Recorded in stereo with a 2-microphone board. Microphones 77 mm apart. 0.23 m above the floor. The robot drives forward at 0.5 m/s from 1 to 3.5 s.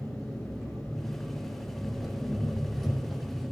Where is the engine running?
5° right (ahead or behind), 5 m.